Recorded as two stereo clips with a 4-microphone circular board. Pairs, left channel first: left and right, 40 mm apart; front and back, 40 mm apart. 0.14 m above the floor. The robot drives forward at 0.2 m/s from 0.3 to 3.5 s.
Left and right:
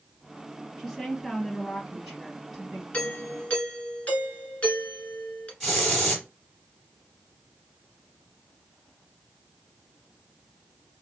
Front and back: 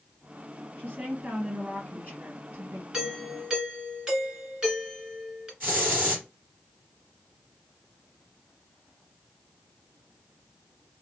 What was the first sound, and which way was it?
A woman speaking, straight behind.